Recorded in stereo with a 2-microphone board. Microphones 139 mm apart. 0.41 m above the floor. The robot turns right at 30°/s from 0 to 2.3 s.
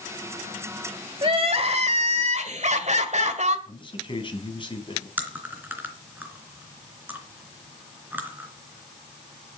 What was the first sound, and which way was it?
Crying, 130° right.